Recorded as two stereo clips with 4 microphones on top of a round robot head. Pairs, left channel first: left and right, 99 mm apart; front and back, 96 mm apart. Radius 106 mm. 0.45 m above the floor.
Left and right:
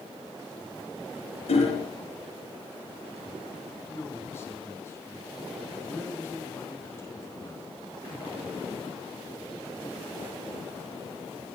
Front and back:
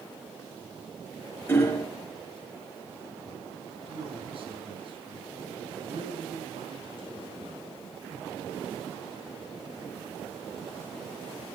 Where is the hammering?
65° left, 5 m.